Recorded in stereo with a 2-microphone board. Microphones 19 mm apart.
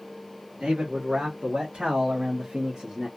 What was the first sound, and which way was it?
A man speaking, 80° right.